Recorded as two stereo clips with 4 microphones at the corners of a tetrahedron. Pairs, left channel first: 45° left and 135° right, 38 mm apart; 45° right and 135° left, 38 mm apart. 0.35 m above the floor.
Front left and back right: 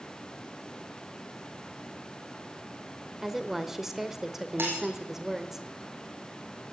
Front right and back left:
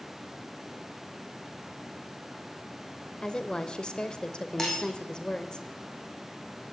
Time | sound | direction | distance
3.2 | a woman speaking | 70° right | 1.0 m
4.6 | breaking glass | 120° right | 5 m